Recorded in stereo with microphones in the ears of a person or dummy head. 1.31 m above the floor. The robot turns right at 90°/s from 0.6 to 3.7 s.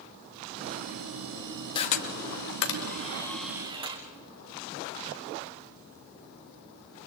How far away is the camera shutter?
About 2 m.